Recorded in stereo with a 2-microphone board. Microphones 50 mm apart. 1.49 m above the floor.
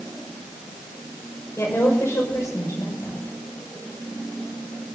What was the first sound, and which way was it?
A woman speaking, 65° left (ahead or behind).